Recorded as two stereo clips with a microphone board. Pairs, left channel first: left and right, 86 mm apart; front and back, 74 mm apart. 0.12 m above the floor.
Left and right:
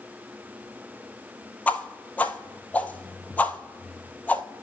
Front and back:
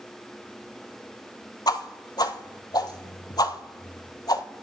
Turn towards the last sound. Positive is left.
turn(degrees=20)